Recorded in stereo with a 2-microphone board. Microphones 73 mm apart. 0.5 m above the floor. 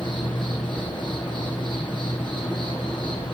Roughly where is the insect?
Left.